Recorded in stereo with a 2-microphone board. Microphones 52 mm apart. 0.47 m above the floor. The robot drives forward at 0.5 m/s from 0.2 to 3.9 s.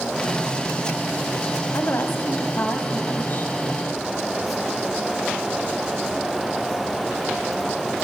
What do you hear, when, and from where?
1.7 s a woman speaking: 55° left (ahead or behind), 2.5 m; by 3.5 s 40° left (ahead or behind), 3 m